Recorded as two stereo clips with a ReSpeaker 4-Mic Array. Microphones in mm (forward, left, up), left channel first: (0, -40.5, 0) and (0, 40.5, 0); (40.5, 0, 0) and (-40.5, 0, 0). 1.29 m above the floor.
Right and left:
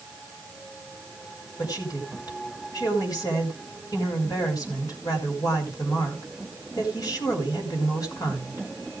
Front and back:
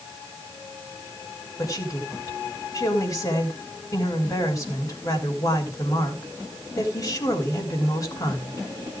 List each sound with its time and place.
1.6 s a woman speaking: 50° right, 4.5 m